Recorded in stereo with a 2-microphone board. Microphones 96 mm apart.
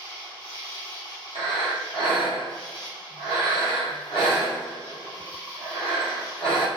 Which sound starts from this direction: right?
An insect, at 0.0 s.